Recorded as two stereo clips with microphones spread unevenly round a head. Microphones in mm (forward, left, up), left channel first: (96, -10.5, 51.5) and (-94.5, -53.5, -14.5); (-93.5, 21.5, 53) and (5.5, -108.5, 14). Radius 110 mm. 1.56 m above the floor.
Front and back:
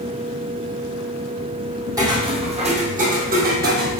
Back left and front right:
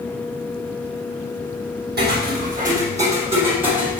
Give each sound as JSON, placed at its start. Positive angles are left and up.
{"t": 2.0, "sound": "footsteps", "azimuth_deg": -85, "distance_m": 3.0}